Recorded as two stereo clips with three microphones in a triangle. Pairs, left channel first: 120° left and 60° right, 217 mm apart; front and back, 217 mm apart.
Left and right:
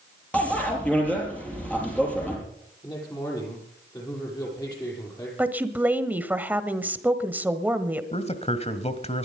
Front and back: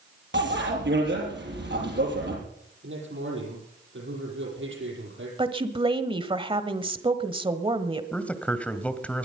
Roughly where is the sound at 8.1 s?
Left.